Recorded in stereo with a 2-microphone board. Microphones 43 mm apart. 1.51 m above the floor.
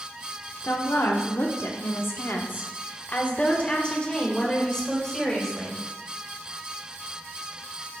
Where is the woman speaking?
65° left (ahead or behind), 1.3 m; by 5.8 s 10° left (ahead or behind), 2.5 m.